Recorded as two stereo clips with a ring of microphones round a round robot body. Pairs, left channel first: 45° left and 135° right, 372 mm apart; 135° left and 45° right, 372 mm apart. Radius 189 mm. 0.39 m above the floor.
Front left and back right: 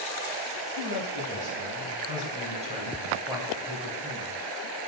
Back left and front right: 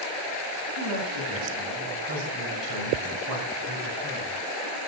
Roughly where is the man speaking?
Right.